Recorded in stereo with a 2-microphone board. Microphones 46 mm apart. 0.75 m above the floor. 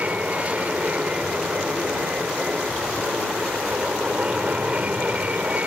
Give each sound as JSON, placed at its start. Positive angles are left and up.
{"t": 0.0, "sound": "an aircraft", "side_deg": -30}